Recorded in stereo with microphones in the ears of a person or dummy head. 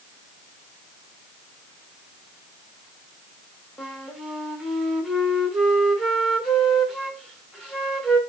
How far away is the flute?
About 0.8 m.